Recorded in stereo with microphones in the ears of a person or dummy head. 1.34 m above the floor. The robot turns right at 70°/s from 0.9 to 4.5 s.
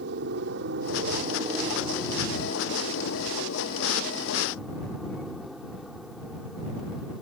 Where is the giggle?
No giggle in this recording.